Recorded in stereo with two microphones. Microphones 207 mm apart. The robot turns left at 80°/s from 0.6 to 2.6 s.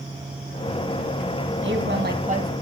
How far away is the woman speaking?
About 2.5 m.